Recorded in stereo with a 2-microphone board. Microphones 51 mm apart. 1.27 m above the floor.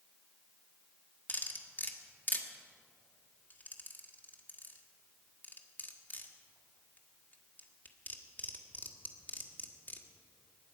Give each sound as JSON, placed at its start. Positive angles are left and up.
{"t": 1.3, "sound": "cutlery clinking", "side_deg": 35, "distance_m": 1.4}